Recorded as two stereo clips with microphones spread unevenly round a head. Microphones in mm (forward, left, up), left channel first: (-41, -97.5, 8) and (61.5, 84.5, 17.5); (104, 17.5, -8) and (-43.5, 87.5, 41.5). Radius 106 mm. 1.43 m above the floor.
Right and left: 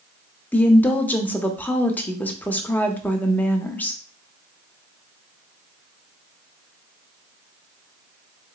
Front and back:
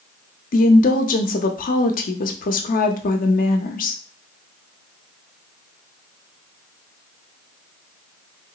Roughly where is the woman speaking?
Ahead right.